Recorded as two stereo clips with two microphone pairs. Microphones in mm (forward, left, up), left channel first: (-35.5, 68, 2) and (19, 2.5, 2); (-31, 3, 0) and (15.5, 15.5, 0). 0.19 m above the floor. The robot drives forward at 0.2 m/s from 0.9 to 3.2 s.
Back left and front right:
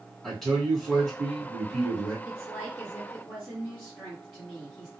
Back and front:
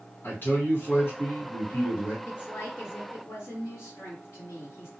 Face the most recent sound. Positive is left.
turn(degrees=-150)